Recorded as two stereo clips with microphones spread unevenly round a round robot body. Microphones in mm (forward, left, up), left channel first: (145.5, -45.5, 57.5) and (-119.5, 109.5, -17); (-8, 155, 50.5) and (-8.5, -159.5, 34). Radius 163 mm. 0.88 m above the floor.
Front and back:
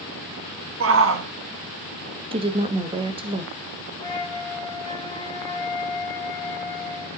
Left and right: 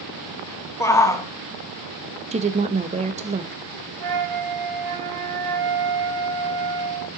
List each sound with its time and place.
0.8 s a shout: 170° left, 1.5 m
2.3 s a woman speaking: 150° right, 1.2 m
4.0 s a flute: 115° right, 5 m